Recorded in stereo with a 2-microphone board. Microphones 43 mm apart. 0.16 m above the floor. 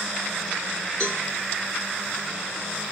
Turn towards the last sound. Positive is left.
turn(degrees=25)  # may be behind; listen again after turning